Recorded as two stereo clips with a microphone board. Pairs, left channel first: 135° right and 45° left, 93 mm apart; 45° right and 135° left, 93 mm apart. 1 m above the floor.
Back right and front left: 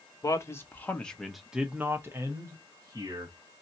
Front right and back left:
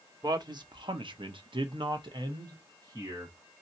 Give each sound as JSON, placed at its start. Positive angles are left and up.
{"t": 0.2, "sound": "a man speaking", "azimuth_deg": 175, "distance_m": 1.1}